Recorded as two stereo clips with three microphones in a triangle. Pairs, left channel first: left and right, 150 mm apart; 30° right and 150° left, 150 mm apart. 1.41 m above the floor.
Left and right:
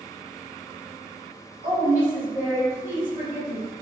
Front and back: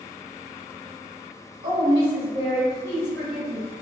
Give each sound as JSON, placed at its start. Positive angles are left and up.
{"t": 1.6, "sound": "a woman speaking", "azimuth_deg": 80, "distance_m": 1.7}